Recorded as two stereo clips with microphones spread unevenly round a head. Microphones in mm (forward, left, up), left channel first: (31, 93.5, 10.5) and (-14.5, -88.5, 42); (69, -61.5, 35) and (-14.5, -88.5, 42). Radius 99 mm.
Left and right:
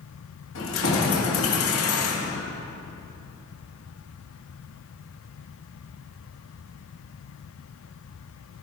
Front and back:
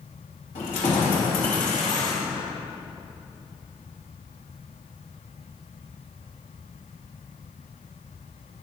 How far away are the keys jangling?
About 2.0 m.